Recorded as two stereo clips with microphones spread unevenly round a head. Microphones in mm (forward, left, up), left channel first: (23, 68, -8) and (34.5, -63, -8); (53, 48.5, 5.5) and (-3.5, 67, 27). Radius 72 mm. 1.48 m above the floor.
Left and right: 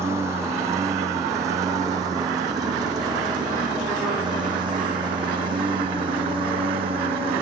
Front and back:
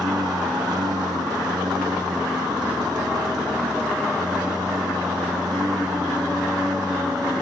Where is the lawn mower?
160° right; by 7.4 s 140° right.